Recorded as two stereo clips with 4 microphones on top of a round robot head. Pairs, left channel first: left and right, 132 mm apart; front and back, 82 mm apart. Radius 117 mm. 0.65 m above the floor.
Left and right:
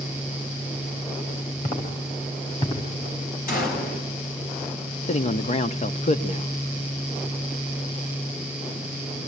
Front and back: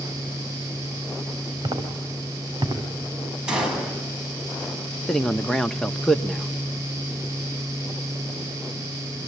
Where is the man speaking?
85° left, 1.3 m.